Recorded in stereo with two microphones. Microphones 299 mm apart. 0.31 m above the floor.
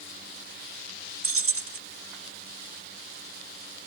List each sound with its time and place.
1.2 s keys jangling: 45° right (ahead or behind), 0.8 m